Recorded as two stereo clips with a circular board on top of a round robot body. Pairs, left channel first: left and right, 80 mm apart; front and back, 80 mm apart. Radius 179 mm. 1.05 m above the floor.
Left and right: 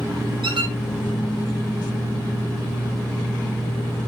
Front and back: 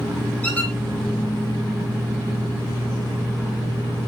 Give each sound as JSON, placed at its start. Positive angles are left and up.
{"t": 0.4, "sound": "a squeak", "azimuth_deg": -70, "distance_m": 0.7}